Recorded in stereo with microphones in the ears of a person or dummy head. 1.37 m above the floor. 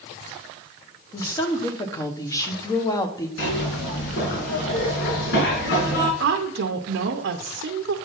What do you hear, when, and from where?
1.1 s a woman speaking: 20° left (ahead or behind), 0.9 m
3.4 s a zipper: 65° left (ahead or behind), 2.5 m
6.2 s a woman speaking: 65° right (ahead or behind), 0.8 m